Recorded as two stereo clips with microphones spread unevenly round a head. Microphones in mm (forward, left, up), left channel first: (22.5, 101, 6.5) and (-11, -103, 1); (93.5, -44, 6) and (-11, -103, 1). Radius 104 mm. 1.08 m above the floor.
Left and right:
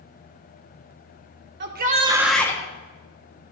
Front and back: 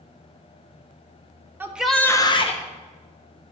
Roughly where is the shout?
Right.